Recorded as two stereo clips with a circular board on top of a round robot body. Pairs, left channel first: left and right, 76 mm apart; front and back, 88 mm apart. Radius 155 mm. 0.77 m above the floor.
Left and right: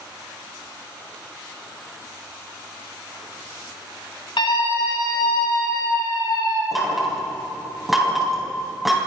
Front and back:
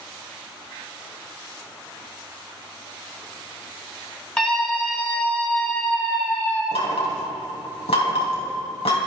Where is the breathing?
I don't hear breathing.